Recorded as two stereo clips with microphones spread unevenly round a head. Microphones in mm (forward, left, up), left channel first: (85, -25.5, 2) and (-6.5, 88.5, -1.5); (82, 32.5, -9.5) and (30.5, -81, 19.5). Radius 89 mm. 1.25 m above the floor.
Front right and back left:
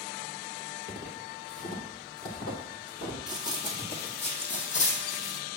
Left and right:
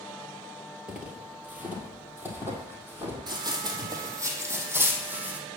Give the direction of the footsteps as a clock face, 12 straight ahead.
2 o'clock.